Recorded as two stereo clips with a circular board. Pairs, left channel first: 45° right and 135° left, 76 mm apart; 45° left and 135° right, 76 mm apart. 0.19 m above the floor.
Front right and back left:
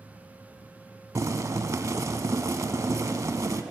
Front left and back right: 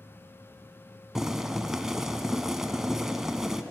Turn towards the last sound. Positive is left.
turn(degrees=145)